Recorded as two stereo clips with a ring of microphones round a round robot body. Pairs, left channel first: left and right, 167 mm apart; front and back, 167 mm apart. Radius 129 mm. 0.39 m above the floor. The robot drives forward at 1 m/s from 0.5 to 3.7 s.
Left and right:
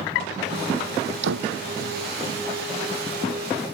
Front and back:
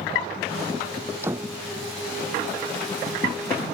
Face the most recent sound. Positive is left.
turn(degrees=-110)